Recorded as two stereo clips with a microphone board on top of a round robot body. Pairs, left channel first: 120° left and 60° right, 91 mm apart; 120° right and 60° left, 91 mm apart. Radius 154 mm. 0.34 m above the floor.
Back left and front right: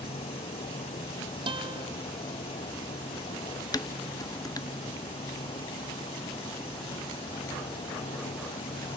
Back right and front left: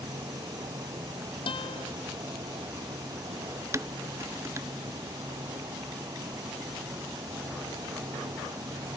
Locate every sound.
0.0 s an insect: 115° left
1.5 s a guitar: 90° right
3.7 s dishes clattering: 100° left